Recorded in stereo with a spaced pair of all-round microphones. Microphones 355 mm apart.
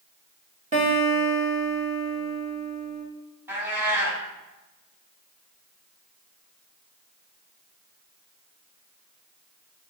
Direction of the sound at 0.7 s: 20° right (ahead or behind).